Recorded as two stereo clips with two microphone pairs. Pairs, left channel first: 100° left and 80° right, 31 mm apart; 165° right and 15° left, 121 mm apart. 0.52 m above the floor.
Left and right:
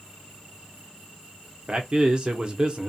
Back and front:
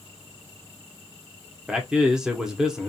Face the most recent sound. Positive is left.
turn(degrees=-70)